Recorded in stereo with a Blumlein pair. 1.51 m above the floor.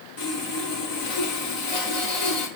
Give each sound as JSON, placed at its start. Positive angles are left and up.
{"t": 0.2, "sound": "sawing", "azimuth_deg": 55, "distance_m": 5.5}